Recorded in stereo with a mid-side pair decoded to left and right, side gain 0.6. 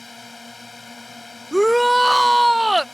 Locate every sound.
0.0 s a drone: 20° left
1.5 s a shout: straight ahead